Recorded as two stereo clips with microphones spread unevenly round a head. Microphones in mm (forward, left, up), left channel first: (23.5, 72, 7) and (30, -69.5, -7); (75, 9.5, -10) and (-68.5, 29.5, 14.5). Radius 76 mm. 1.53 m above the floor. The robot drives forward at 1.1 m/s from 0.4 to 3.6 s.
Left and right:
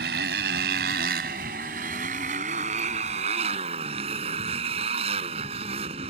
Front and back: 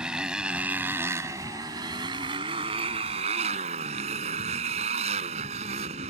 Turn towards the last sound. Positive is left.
turn(degrees=-140)